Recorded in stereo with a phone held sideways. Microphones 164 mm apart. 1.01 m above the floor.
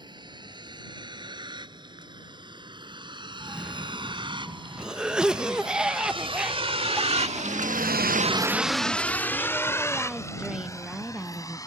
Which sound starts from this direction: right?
A vehicle, at 0.0 s.